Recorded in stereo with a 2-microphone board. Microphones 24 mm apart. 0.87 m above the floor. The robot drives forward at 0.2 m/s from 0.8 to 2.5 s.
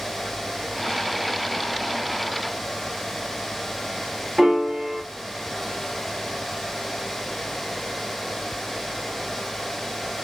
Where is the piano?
15° right (ahead or behind), 0.9 m.